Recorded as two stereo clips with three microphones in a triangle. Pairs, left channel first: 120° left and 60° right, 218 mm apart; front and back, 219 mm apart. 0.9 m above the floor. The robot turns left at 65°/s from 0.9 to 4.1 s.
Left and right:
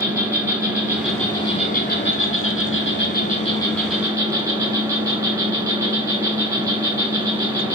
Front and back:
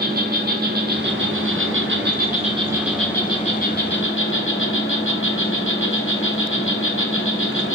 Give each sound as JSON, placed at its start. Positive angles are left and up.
{"t": 0.0, "sound": "an insect", "azimuth_deg": -135, "distance_m": 2.0}